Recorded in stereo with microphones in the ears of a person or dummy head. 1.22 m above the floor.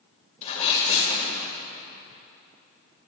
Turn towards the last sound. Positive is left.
turn(degrees=35)  # may be behind; listen again after turning